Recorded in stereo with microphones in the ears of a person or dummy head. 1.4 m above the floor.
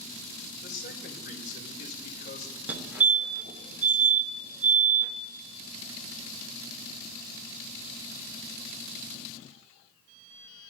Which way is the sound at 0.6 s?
45° left (ahead or behind).